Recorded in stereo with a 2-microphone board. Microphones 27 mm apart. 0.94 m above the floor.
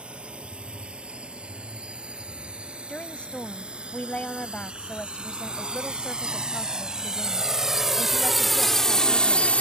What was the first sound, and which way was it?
A drone, 45° right (ahead or behind).